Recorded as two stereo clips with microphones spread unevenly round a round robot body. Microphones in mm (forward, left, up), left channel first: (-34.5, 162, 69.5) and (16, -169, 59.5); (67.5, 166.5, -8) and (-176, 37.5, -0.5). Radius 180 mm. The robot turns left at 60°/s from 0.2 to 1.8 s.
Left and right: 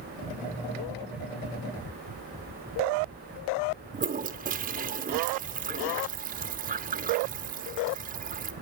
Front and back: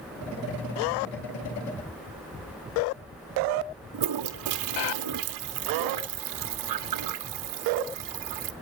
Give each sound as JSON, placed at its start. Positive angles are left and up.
{"t": 3.9, "sound": "a toilet flushing", "azimuth_deg": -150, "distance_m": 0.9}